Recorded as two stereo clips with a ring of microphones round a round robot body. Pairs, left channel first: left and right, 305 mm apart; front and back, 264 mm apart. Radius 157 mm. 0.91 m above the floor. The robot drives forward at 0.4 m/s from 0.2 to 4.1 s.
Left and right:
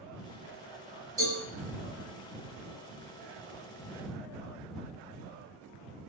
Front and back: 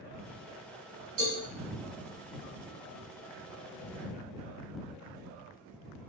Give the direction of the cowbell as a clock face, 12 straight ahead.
6 o'clock.